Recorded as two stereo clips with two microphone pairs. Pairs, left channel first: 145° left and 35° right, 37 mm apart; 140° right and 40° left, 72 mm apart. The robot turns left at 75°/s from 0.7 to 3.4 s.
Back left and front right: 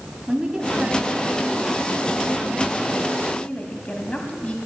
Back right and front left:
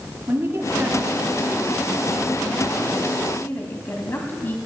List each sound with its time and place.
0.3 s a woman speaking: 25° left, 1.3 m; by 4.6 s 175° right, 1.3 m